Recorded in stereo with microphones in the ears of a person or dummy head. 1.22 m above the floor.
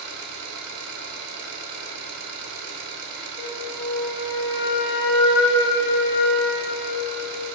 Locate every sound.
0.0 s an engine running: 75° right (ahead or behind), 3 m
3.4 s a flute: 90° left, 5 m